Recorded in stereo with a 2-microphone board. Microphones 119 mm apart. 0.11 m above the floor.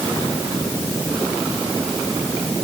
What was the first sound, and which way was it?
Only background noise.